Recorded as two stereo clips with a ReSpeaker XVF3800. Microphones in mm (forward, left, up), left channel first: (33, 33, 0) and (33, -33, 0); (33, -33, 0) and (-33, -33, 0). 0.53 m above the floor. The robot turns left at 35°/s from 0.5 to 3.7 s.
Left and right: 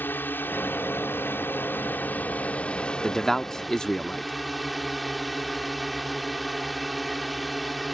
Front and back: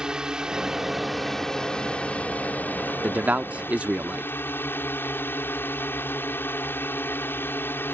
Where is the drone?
110° left; by 8.0 s straight ahead.